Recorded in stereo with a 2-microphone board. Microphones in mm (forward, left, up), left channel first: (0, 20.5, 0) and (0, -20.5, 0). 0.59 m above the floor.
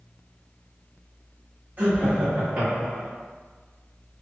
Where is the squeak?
I don't hear a squeak.